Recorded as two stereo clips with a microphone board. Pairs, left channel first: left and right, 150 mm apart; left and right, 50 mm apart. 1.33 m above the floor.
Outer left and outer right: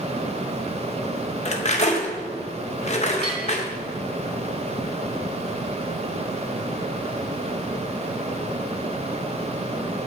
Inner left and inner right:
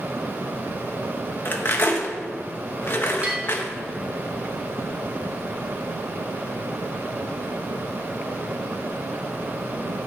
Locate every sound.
1.4 s cutlery clinking: 50° left (ahead or behind), 0.7 m
3.2 s a bell: 30° right (ahead or behind), 2.5 m